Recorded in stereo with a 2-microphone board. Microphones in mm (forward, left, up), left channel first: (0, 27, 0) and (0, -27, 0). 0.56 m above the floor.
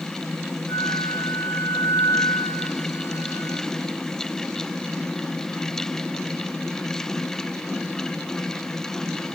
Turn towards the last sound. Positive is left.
turn(degrees=70)  # may be behind; listen again after turning